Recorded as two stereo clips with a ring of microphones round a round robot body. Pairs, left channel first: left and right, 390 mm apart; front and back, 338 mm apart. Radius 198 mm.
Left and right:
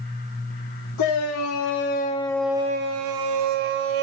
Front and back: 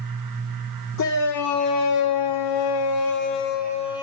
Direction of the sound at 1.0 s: 40° left.